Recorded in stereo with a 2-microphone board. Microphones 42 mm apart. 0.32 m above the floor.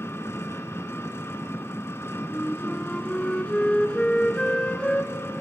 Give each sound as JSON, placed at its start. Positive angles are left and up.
{"t": 0.0, "sound": "an engine running", "side_deg": 80, "distance_m": 1.6}
{"t": 2.3, "sound": "a flute", "side_deg": 25, "distance_m": 2.0}